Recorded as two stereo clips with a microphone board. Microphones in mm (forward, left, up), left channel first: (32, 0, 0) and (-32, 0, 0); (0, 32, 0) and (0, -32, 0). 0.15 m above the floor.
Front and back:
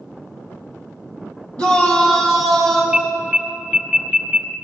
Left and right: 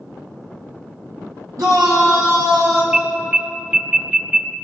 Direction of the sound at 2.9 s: 115° right.